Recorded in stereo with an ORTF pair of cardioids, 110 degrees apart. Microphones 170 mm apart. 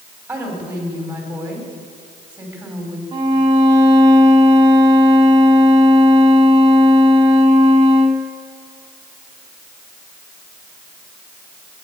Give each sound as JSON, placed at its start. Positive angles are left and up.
{"t": 0.3, "sound": "a woman speaking", "azimuth_deg": -10, "distance_m": 5.5}
{"t": 3.1, "sound": "a violin", "azimuth_deg": -25, "distance_m": 2.5}